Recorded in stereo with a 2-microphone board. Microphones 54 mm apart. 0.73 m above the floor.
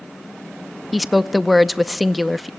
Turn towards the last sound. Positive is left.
turn(degrees=-5)  # may be behind; listen again after turning